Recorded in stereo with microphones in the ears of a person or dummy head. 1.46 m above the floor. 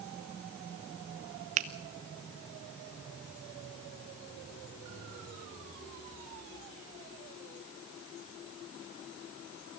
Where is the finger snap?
40° right (ahead or behind), 0.8 m.